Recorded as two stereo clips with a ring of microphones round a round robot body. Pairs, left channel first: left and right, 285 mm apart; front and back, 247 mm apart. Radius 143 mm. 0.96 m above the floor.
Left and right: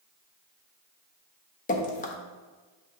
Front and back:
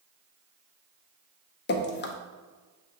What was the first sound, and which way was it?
Dripping, 35° left.